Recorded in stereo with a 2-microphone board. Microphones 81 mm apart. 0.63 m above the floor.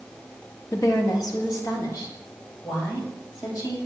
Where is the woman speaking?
40° left (ahead or behind), 0.9 m; by 3.8 s 50° left (ahead or behind), 3 m.